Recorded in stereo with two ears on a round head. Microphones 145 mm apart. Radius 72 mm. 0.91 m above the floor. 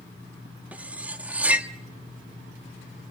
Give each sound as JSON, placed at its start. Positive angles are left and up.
{"t": 0.7, "sound": "cutlery clinking", "side_deg": -10, "distance_m": 0.9}